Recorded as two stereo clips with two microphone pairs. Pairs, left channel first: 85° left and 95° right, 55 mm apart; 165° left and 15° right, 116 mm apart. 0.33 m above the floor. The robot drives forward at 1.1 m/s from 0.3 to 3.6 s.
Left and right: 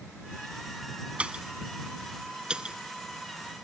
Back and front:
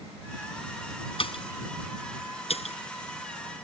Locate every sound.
1.2 s a pop: 165° right; by 2.8 s 170° right